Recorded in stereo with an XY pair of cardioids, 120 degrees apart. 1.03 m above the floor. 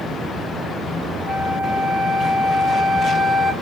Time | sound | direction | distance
1.3 | a flute | 15° right | 1.5 m